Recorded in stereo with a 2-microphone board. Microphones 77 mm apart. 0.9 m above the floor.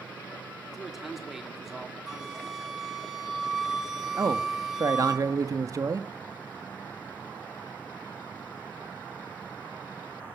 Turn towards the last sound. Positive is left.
turn(degrees=-45)  # may be behind; listen again after turning